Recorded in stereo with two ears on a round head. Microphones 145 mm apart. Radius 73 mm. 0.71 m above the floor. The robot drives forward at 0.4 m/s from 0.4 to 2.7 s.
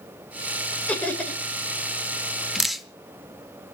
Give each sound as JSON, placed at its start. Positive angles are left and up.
{"t": 0.9, "sound": "laughter", "side_deg": 10, "distance_m": 3.5}
{"t": 2.5, "sound": "dripping", "side_deg": 0, "distance_m": 1.0}